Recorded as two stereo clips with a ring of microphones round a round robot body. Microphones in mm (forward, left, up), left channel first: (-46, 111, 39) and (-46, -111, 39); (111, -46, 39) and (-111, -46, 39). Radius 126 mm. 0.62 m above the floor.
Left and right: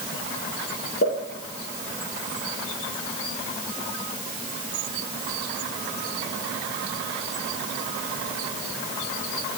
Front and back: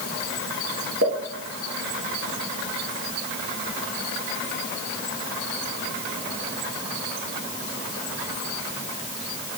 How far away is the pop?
About 1.8 m.